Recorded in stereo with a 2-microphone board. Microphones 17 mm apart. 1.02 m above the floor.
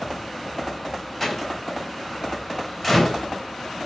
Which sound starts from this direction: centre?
A door slam, at 1.2 s.